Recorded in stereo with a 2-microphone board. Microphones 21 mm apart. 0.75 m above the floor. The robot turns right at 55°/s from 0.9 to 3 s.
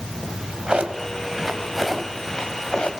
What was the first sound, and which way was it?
A drawer, 45° right (ahead or behind).